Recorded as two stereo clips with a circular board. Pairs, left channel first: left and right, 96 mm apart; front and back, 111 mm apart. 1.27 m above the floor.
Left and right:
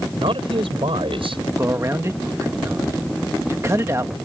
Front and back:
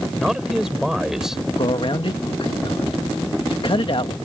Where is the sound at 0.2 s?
95° right.